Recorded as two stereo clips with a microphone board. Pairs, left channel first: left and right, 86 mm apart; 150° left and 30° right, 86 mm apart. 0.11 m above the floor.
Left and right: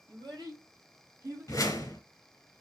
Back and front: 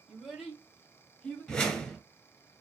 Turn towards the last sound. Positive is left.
turn(degrees=75)